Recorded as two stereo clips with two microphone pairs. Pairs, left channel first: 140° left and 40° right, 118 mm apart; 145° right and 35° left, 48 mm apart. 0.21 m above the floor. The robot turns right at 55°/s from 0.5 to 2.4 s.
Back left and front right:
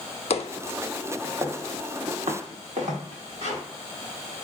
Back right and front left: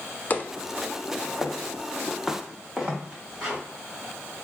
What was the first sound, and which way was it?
Footsteps, 165° left.